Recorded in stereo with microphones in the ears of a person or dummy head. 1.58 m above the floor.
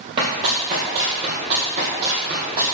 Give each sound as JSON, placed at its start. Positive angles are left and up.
{"t": 0.2, "sound": "running footsteps", "side_deg": -25, "distance_m": 2.0}